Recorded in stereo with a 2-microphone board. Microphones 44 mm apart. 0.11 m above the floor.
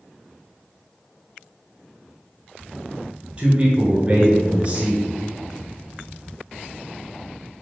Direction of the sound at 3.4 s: 25° right (ahead or behind).